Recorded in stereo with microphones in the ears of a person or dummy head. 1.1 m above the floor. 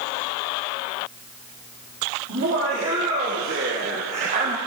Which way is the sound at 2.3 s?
50° right (ahead or behind).